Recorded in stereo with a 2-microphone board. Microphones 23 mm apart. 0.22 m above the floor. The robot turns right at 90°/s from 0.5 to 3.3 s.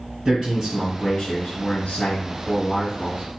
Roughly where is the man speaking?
Ahead right.